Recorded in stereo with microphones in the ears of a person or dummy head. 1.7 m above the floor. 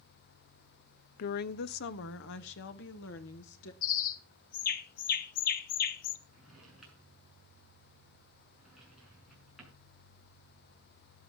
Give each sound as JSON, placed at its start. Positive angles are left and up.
{"t": 1.2, "sound": "a woman speaking", "side_deg": 55, "distance_m": 0.5}
{"t": 3.8, "sound": "a bird", "side_deg": 50, "distance_m": 1.3}
{"t": 6.3, "sound": "a drawer", "side_deg": -5, "distance_m": 6.5}